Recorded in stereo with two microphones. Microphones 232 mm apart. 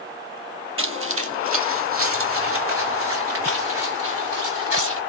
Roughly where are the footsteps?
Right.